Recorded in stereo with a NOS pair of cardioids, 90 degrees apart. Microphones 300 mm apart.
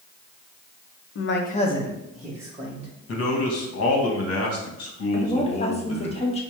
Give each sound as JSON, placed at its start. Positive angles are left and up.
{"t": 1.1, "sound": "a man speaking", "azimuth_deg": 45, "distance_m": 0.8}
{"t": 3.1, "sound": "a man speaking", "azimuth_deg": 50, "distance_m": 1.3}
{"t": 5.1, "sound": "a woman speaking", "azimuth_deg": 20, "distance_m": 1.2}